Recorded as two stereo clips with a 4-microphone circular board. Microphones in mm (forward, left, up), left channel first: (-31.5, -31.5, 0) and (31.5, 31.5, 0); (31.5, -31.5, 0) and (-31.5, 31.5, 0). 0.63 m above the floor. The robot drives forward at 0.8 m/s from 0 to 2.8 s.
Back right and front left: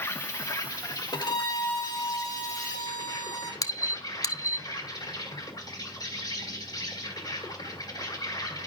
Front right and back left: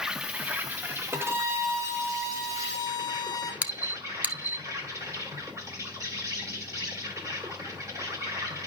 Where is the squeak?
160° right, 0.8 m.